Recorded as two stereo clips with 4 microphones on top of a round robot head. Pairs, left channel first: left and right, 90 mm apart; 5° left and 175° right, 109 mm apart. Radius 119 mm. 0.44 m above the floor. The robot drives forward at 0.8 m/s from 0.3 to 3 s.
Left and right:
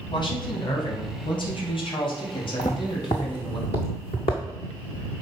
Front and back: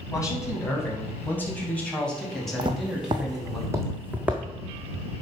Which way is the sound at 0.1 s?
65° left.